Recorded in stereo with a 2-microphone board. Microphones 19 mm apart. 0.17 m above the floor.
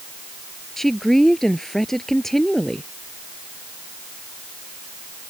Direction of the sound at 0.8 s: 15° left (ahead or behind).